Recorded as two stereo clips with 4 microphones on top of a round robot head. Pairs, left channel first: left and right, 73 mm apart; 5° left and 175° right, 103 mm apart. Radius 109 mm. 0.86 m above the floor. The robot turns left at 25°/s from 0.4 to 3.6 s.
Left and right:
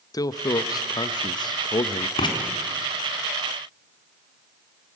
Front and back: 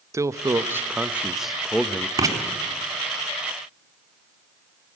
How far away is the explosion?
No explosion in this recording.